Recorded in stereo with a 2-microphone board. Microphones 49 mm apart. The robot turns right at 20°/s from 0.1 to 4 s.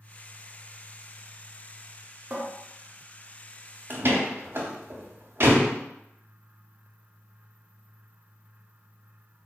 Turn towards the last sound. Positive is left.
turn(degrees=-50)  # may be behind; listen again after turning